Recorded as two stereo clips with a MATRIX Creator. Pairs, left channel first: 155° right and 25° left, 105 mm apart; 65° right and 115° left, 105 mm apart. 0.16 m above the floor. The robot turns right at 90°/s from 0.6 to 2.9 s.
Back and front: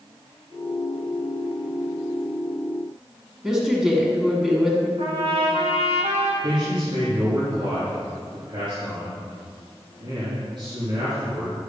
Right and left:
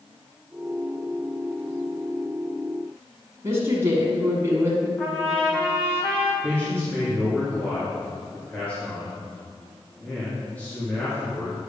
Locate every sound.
3.4 s a woman speaking: 105° left, 1.6 m
5.0 s a trumpet: 10° left, 2.0 m
6.4 s a man speaking: 5° left, 3 m